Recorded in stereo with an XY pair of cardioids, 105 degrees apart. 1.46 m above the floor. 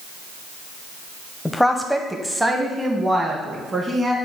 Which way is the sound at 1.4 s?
10° left.